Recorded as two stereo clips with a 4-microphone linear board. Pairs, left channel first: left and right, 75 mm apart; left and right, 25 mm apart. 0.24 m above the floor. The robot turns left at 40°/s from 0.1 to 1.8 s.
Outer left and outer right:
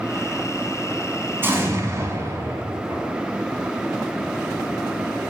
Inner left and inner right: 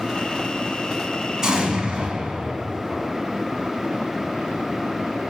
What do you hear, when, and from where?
1.4 s an explosion: 30° right (ahead or behind), 1.6 m; by 3.1 s 40° right (ahead or behind), 1.6 m